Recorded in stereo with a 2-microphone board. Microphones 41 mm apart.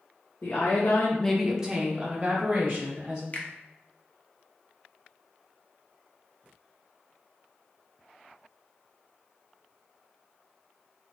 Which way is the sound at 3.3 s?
40° left (ahead or behind).